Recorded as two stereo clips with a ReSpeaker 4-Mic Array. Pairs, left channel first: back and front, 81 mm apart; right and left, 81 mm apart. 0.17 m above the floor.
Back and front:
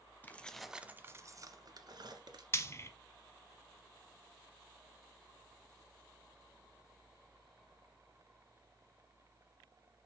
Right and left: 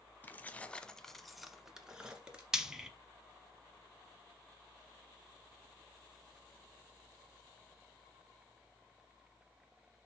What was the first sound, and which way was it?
Keys jangling, 135° right.